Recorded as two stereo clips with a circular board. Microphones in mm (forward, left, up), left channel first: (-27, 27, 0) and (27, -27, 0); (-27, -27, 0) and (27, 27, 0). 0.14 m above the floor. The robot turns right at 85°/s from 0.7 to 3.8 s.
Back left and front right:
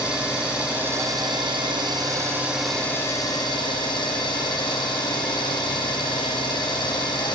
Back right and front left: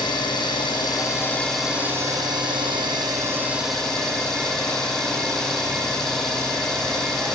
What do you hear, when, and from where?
0.0 s an engine running: 120° right, 1.9 m; by 7.4 s 145° left, 1.9 m